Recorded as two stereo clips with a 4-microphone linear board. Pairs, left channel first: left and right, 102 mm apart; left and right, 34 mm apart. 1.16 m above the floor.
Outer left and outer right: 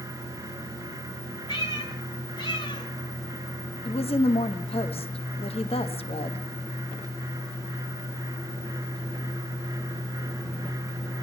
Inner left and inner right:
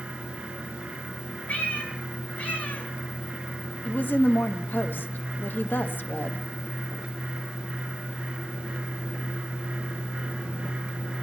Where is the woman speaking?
70° left (ahead or behind), 1.2 m.